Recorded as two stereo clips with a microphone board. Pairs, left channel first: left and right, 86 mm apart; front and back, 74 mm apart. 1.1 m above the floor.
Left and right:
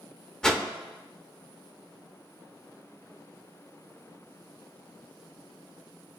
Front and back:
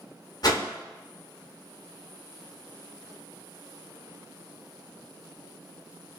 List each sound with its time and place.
0.4 s a whoosh: 10° left, 0.7 m